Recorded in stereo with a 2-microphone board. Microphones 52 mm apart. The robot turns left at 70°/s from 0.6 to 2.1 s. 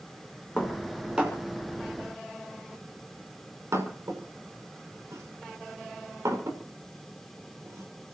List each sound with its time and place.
0.6 s dishes clattering: 25° left (ahead or behind), 5.5 m; by 8.2 s 80° right, 5.5 m